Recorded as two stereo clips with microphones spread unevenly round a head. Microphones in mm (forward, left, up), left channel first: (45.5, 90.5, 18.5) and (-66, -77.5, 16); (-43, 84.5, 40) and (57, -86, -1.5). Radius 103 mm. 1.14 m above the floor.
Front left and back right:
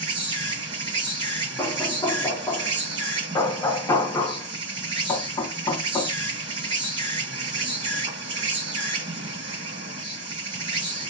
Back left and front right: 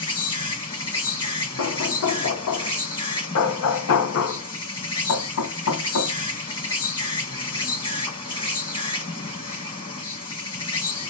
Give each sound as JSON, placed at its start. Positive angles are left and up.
{"t": 0.0, "sound": "an insect", "azimuth_deg": 175, "distance_m": 1.6}
{"t": 1.6, "sound": "knocking", "azimuth_deg": 130, "distance_m": 0.7}